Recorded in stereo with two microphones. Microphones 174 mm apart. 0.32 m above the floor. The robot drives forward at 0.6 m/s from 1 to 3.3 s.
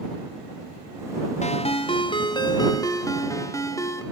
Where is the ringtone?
40° left (ahead or behind), 0.9 m; by 4.0 s 20° left (ahead or behind), 1.8 m.